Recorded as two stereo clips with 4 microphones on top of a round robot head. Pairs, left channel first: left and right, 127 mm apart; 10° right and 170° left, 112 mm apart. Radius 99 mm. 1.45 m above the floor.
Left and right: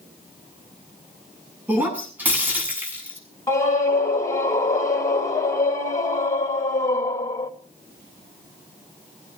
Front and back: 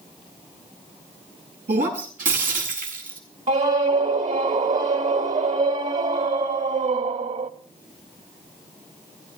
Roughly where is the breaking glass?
Behind.